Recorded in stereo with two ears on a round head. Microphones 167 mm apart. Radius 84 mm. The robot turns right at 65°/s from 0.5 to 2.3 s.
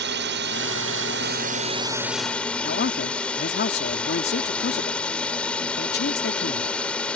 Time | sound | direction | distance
0.0 | a drone | 110° right | ?
2.6 | a man speaking | 60° left (ahead or behind) | ?